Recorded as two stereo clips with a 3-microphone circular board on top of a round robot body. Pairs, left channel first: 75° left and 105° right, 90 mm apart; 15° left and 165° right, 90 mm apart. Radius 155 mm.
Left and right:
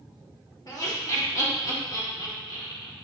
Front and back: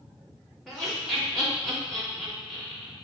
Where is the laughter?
100° left, 2 m.